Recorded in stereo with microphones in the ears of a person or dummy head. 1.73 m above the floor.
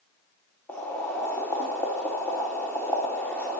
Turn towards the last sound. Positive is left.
turn(degrees=10)  # may be behind; listen again after turning